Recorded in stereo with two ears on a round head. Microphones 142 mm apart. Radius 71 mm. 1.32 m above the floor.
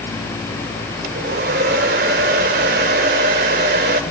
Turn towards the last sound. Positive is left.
turn(degrees=-60)  # may be behind; listen again after turning